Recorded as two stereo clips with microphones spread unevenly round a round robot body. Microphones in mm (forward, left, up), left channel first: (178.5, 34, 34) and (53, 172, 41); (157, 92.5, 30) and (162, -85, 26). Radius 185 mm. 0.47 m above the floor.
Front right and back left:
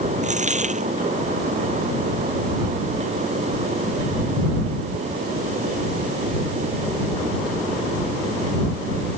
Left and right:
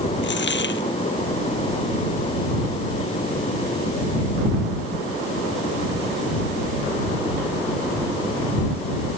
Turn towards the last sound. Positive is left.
turn(degrees=80)